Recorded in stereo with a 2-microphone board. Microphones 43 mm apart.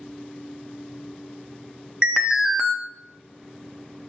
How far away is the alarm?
About 1.2 m.